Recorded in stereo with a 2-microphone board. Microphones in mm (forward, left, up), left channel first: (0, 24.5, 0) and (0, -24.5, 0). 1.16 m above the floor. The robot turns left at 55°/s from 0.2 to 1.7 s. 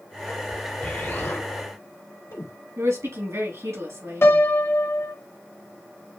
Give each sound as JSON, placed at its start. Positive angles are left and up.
{"t": 0.8, "sound": "an explosion", "side_deg": 40, "distance_m": 2.0}
{"t": 2.8, "sound": "a woman speaking", "side_deg": -75, "distance_m": 3.0}
{"t": 4.2, "sound": "a piano", "side_deg": 55, "distance_m": 0.8}